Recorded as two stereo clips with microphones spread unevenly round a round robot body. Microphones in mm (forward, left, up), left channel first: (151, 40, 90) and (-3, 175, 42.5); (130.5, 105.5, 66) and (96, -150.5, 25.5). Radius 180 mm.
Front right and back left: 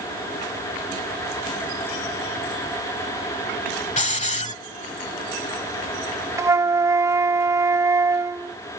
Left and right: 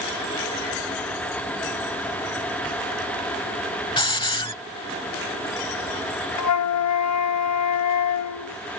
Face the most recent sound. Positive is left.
turn(degrees=65)